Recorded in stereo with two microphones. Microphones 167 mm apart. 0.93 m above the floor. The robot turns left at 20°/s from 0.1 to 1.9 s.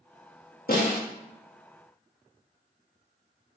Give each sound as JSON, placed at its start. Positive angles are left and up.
{"t": 0.7, "sound": "a snare drum", "side_deg": 65, "distance_m": 1.0}